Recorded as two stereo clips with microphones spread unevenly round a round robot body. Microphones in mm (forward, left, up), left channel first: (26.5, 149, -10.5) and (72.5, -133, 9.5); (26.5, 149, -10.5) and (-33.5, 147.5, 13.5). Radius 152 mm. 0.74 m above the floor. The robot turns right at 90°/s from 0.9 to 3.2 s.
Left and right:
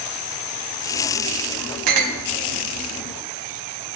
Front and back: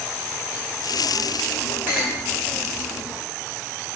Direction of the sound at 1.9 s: 95° right.